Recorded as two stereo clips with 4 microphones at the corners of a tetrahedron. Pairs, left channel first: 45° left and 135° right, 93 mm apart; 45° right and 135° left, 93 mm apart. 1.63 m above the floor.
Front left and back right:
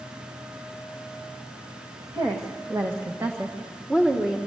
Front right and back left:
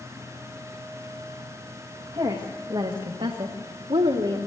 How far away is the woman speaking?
About 2.0 m.